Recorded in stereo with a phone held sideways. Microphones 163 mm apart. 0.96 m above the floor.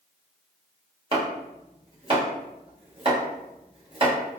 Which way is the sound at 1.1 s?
35° right (ahead or behind).